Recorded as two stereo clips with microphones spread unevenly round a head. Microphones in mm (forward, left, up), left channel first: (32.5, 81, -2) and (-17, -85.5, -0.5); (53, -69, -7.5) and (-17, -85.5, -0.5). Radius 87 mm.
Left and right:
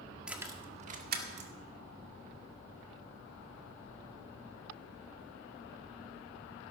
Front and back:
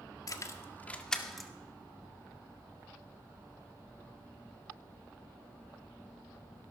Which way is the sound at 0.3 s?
20° right.